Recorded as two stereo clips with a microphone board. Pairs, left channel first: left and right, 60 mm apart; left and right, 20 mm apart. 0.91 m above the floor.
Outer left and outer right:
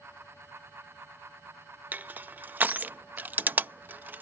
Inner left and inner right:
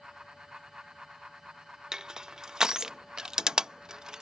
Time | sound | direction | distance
1.9 | crushing | 30° right (ahead or behind) | ?